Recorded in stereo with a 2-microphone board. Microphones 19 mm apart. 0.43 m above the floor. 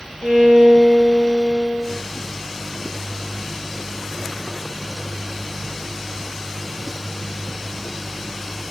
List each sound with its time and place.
0.2 s a violin: 80° left, 5 m